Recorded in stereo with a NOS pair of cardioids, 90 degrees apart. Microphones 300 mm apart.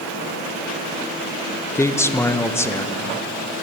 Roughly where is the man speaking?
Ahead.